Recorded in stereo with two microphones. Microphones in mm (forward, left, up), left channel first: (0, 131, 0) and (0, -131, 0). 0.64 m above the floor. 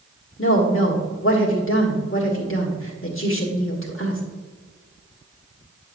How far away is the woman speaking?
About 1.5 m.